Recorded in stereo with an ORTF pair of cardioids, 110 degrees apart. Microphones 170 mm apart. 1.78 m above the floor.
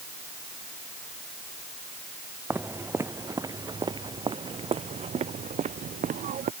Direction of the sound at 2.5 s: 10° right.